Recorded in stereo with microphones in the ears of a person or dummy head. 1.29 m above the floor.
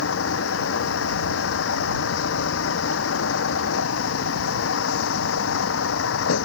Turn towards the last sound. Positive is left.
turn(degrees=90)